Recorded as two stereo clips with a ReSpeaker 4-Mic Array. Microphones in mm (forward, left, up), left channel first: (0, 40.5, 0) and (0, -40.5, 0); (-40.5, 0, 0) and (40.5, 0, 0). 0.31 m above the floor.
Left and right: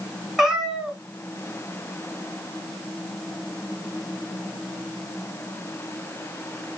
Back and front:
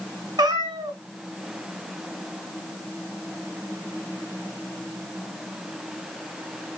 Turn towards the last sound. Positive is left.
turn(degrees=-5)